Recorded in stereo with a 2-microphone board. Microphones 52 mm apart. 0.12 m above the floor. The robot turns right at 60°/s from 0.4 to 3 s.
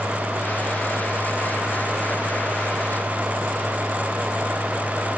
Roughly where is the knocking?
No knocking in this recording.